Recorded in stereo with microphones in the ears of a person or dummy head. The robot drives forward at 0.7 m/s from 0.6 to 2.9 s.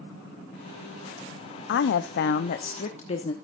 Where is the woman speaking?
70° left (ahead or behind), 0.7 m; by 3.3 s 40° left (ahead or behind), 1.0 m.